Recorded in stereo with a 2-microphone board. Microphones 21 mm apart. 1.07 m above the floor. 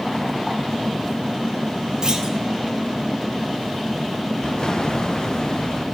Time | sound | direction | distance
2.0 | a clunk | 35° right (ahead or behind) | 1.8 m
4.4 | an explosion | 40° left (ahead or behind) | 0.8 m